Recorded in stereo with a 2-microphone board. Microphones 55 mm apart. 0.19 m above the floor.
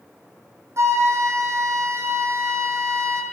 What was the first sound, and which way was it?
A flute, 55° right (ahead or behind).